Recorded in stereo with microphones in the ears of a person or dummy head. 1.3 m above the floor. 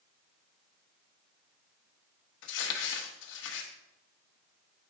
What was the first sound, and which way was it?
Crumpling, 70° left (ahead or behind).